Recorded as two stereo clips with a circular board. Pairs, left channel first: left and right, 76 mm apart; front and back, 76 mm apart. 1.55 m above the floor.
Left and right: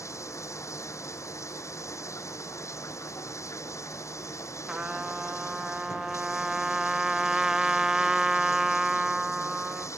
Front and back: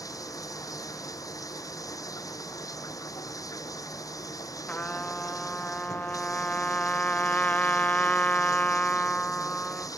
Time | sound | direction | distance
0.0 | running water | 40° left | ?
4.7 | a trumpet | 25° right | ?